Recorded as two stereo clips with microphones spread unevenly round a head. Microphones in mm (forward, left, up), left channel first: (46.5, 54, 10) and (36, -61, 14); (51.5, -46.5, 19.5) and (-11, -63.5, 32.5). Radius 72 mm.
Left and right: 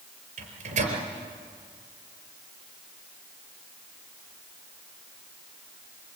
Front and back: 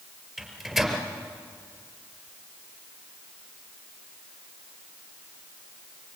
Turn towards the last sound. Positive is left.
turn(degrees=-75)